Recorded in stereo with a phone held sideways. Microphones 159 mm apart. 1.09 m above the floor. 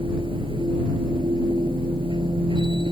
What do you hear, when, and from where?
0.0 s a machine running: 35° right (ahead or behind)